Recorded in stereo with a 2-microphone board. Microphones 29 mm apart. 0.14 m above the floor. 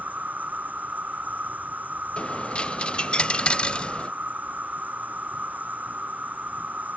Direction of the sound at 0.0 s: 80° right.